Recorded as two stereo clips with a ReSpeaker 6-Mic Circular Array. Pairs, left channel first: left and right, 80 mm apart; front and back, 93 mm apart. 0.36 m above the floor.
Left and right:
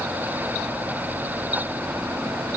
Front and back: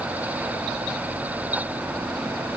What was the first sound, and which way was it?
Only background noise.